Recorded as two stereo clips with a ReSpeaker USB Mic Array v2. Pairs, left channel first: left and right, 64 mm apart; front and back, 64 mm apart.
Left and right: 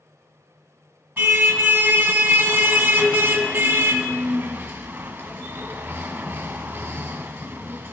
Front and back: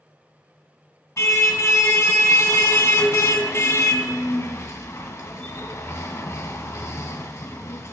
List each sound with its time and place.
1.2 s a car horn: 30° right, 2.5 m